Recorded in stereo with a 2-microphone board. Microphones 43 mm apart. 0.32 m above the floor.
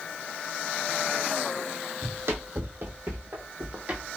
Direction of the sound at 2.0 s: 65° right (ahead or behind).